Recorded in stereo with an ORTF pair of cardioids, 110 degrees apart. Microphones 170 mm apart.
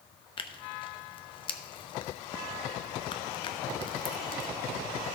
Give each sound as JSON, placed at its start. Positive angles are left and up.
{"t": 0.4, "sound": "tearing paper", "azimuth_deg": 30, "distance_m": 0.9}